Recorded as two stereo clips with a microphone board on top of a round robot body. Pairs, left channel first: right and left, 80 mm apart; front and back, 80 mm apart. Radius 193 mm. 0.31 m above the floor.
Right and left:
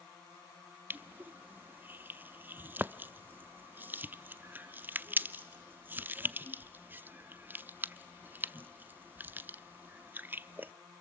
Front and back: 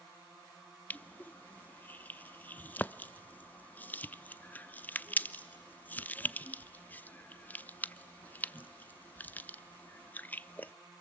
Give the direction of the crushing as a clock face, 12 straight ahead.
10 o'clock.